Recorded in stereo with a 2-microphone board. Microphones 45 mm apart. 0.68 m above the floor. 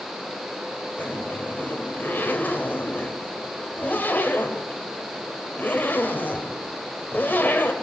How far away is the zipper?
About 3.5 m.